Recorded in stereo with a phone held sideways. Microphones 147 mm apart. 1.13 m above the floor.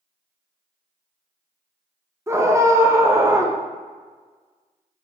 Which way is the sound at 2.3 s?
20° right (ahead or behind).